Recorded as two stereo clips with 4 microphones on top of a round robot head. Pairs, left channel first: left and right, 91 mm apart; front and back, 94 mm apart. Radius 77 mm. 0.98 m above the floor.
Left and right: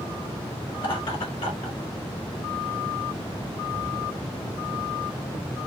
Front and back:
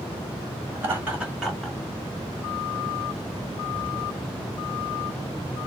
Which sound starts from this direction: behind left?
Laughter, at 0.8 s.